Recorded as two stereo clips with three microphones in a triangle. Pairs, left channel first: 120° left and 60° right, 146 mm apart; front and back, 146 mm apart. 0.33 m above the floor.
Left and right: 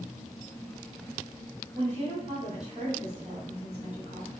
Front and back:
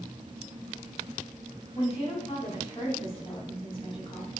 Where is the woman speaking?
40° right, 2.5 m.